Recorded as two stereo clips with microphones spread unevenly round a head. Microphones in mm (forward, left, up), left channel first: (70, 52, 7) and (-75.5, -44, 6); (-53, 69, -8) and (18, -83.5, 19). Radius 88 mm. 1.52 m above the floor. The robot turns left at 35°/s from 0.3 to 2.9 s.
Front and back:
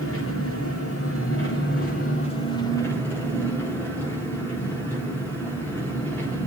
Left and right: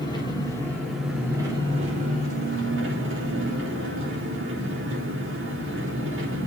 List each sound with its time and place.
0.0 s an engine running: 45° left, 4 m; by 6.5 s 45° right, 4 m